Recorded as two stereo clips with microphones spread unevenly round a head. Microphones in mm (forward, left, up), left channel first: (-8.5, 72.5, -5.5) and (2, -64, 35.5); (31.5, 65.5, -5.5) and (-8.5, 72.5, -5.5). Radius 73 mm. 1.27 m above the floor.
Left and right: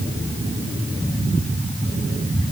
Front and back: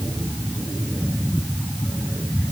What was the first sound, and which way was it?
Only background noise.